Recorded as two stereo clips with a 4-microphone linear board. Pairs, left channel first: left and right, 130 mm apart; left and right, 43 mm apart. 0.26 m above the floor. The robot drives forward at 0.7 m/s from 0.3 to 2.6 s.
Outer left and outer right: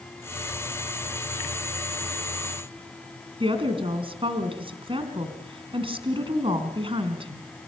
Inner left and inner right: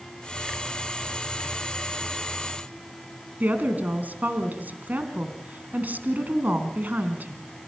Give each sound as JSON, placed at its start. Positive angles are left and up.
{"t": 3.4, "sound": "a woman speaking", "side_deg": -45, "distance_m": 3.0}